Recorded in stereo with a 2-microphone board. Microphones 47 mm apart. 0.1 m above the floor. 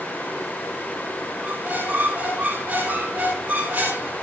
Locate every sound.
1.4 s a squeak: 30° right (ahead or behind), 10 m